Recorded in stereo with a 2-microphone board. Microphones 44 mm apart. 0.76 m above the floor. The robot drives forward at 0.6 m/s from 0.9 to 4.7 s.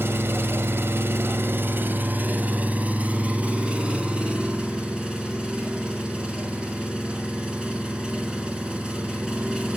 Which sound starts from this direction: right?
An engine running, at 0.0 s.